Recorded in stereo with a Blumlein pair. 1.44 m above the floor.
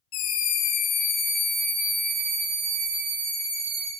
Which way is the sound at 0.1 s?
40° left.